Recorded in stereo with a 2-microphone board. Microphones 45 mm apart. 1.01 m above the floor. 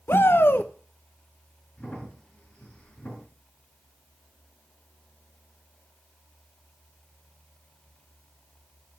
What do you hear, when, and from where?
0.1 s a shout: 55° left (ahead or behind), 0.6 m
1.8 s a crack: 30° left (ahead or behind), 4 m